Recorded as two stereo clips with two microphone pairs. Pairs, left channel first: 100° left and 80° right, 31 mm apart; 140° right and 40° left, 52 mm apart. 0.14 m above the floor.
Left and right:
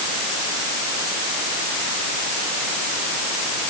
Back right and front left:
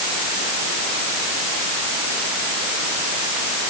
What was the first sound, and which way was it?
Only background noise.